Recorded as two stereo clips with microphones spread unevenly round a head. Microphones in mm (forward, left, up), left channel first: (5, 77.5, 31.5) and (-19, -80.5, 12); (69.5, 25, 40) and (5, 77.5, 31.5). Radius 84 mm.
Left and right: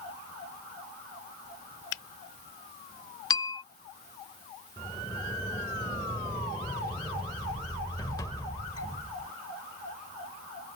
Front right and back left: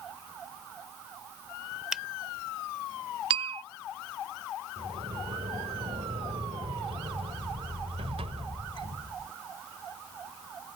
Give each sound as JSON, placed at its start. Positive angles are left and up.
{"t": 1.9, "sound": "a finger snap", "azimuth_deg": 55}
{"t": 3.3, "sound": "a bell", "azimuth_deg": 150}
{"t": 4.8, "sound": "a sliding door", "azimuth_deg": 150}